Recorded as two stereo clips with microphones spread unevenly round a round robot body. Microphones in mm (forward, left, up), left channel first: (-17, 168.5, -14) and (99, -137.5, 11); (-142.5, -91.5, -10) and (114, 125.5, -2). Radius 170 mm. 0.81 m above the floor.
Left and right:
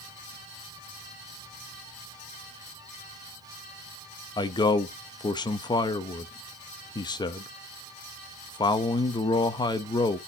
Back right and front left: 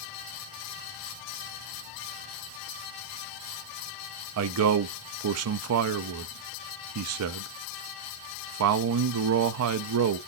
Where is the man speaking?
45° left, 0.8 m.